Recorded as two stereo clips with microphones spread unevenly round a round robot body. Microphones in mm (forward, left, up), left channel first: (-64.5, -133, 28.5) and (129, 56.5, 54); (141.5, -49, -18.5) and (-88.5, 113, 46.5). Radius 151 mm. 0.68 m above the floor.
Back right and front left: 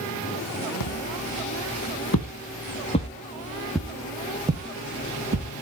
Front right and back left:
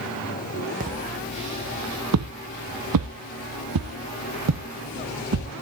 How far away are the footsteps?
About 2.5 m.